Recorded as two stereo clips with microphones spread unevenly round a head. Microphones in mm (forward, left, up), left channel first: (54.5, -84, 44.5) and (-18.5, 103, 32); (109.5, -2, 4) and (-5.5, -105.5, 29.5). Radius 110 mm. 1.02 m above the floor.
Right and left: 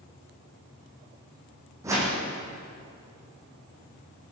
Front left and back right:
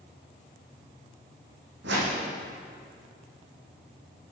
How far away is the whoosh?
About 8 m.